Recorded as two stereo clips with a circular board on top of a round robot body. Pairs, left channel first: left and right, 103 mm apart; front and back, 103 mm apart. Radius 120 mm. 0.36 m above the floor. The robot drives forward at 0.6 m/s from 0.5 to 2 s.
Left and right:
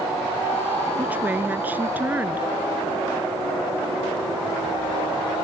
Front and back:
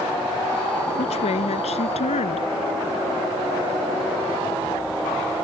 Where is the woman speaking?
15° right.